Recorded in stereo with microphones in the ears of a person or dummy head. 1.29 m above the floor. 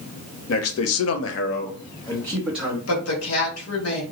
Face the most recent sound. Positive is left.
turn(degrees=85)